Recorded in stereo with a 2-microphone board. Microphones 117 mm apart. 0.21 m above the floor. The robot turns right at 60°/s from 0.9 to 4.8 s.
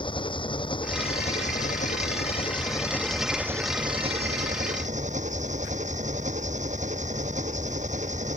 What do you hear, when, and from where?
0.0 s an engine running: 45° left; by 8.4 s 85° right